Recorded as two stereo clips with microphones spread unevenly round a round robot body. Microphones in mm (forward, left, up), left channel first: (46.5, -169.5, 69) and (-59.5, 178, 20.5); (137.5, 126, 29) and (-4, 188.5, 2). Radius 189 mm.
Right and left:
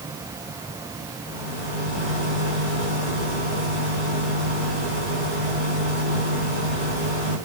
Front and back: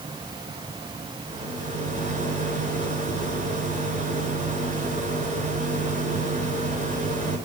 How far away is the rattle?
About 5 m.